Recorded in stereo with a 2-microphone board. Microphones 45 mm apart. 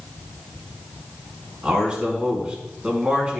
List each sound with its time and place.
1.6 s a man speaking: 20° right (ahead or behind), 4 m